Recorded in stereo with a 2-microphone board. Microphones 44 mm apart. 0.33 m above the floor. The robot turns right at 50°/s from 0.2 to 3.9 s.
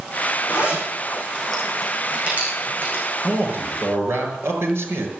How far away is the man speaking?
About 6 m.